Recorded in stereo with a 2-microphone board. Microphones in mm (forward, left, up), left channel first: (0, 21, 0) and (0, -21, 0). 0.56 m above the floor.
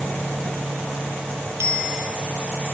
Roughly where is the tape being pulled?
No tape being pulled in this recording.